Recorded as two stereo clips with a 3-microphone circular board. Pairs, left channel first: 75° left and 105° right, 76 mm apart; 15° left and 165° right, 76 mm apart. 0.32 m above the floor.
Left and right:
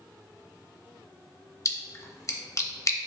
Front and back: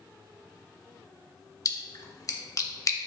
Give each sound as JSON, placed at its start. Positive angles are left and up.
{"t": 1.6, "sound": "a splash", "azimuth_deg": 40, "distance_m": 0.5}